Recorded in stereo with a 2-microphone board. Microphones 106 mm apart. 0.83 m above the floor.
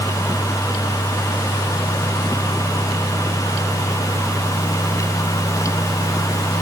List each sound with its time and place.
Only background noise.